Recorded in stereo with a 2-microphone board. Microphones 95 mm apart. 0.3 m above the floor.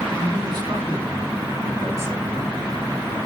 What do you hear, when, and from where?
0.2 s a man speaking: 50° right (ahead or behind), 4 m; by 2.5 s 25° right (ahead or behind), 2.5 m